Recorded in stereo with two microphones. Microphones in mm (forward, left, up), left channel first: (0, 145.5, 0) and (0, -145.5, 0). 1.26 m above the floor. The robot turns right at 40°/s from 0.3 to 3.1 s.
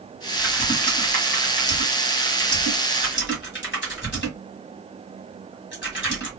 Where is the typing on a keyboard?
15° left (ahead or behind), 1.6 m; by 6.3 s 40° left (ahead or behind), 1.6 m.